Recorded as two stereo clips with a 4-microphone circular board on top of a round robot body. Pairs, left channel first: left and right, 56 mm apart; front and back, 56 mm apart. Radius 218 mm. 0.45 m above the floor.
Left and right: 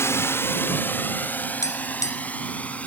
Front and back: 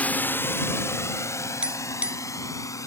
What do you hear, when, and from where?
0.0 s a drone: 60° left; by 2.9 s 25° left
1.6 s tapping: 110° left